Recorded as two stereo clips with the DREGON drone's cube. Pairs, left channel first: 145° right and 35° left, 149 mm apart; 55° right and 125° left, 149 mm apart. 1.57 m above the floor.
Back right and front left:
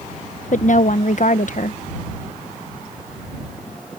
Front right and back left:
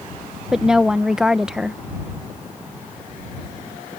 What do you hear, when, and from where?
0.5 s a woman speaking: 150° right